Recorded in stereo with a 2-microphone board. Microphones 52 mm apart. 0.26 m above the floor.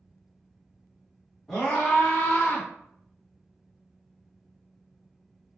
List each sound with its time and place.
1.5 s a scream: centre (ahead or behind), 1.6 m; by 2.7 s 35° left (ahead or behind), 1.3 m